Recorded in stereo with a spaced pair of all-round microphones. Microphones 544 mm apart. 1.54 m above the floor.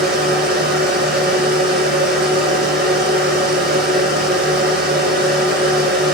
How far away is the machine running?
About 6 m.